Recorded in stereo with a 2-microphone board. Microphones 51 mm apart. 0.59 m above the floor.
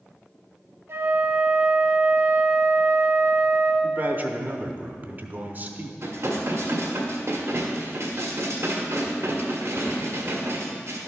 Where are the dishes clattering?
70° right (ahead or behind), 1.4 m.